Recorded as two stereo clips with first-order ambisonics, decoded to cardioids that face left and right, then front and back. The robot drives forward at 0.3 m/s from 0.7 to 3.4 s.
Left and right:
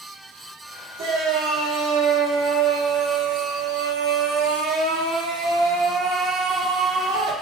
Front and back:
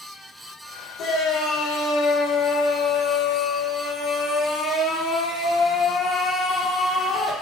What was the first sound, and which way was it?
A shout, 50° right.